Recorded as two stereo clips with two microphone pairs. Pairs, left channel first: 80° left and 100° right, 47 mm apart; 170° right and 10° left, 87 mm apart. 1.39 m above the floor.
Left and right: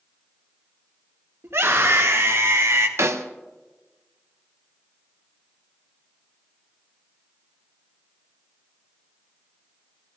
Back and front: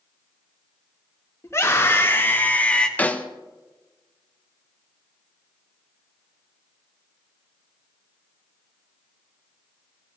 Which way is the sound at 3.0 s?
100° right.